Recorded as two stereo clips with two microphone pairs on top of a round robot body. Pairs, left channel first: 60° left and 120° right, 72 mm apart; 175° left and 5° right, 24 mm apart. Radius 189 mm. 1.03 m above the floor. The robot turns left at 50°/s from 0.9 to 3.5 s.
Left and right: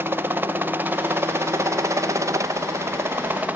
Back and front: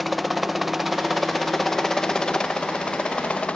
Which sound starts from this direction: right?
A helicopter, at 0.0 s.